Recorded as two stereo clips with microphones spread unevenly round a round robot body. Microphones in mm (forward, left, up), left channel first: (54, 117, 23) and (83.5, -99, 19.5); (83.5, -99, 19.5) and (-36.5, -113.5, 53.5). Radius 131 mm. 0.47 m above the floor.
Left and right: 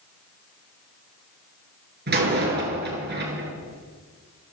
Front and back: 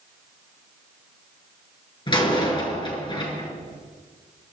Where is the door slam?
40° right, 7 m.